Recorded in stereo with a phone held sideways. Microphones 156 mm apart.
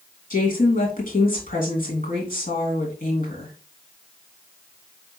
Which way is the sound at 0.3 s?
60° left (ahead or behind).